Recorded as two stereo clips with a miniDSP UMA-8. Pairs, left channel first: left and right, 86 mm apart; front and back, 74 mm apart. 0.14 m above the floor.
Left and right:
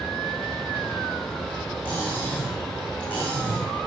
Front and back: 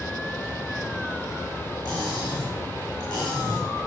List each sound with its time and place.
1.9 s cutlery clinking: 25° left, 6 m